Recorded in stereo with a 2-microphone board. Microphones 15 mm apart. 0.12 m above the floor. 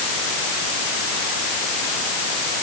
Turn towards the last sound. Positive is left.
No sound to turn to.